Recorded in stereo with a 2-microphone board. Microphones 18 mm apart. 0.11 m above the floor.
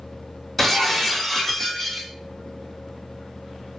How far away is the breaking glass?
About 1.7 m.